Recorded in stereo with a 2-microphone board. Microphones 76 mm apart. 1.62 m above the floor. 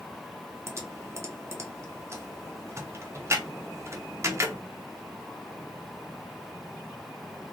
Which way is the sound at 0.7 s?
35° right (ahead or behind).